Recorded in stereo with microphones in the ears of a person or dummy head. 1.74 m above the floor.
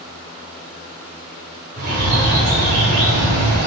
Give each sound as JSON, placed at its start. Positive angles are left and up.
{"t": 1.8, "sound": "a bird", "side_deg": -60, "distance_m": 3.0}